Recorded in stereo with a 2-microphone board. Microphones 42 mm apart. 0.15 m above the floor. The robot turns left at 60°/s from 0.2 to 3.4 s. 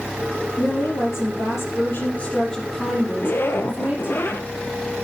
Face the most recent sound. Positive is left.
turn(degrees=55)  # may be behind; listen again after turning